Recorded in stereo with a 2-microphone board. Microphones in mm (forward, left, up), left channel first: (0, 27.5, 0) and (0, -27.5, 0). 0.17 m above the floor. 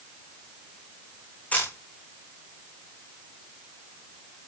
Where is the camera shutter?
25° left (ahead or behind), 5 m.